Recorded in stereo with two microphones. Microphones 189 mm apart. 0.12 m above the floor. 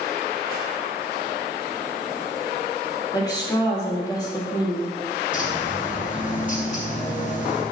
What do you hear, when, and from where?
3.1 s a woman speaking: 20° left (ahead or behind), 2.5 m
5.3 s a bird: 45° left (ahead or behind), 2 m